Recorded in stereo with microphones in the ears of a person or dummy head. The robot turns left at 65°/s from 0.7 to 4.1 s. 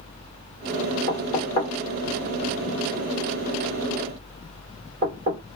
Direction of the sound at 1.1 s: 45° left (ahead or behind).